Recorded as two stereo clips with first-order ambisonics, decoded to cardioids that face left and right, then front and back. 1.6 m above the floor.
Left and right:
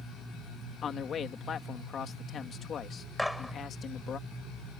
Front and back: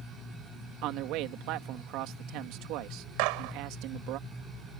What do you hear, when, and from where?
0.8 s a man speaking: 150° left
3.2 s a gunshot: 175° left